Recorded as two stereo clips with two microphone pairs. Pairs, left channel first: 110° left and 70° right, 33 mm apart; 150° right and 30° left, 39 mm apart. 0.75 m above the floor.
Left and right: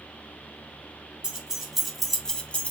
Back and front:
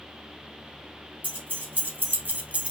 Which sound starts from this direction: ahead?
Keys jangling, at 1.2 s.